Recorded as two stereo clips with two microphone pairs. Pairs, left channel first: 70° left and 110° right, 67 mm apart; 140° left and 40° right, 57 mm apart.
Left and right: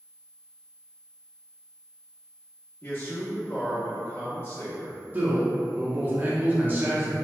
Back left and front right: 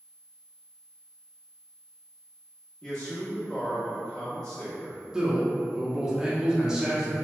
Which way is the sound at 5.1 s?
105° right.